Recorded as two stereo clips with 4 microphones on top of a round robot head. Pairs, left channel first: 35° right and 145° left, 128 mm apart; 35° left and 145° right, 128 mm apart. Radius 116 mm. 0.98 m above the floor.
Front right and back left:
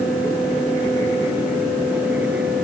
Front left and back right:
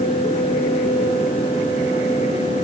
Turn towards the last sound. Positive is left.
No sound to turn to.